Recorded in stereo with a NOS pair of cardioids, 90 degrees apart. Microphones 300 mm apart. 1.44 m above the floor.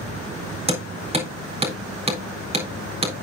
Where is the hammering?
20° right, 4 m.